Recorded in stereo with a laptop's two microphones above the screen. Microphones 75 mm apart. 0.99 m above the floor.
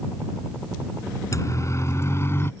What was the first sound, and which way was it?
A siren, 40° left (ahead or behind).